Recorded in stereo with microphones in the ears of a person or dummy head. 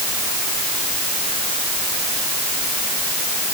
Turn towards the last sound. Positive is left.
No sound to turn to.